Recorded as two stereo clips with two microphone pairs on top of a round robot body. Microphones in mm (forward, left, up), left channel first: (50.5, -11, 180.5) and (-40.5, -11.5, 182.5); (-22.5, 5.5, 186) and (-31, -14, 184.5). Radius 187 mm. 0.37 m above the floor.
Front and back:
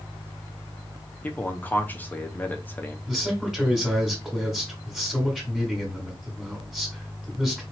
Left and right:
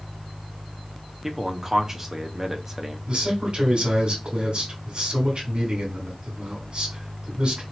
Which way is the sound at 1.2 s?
55° right.